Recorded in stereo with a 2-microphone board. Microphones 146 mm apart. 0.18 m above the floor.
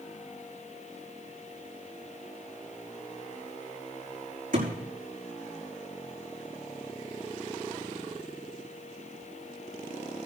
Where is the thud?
65° right (ahead or behind), 5.5 m.